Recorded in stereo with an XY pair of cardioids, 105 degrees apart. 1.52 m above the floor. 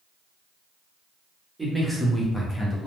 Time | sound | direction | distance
1.6 | a man speaking | 10° right | 1.0 m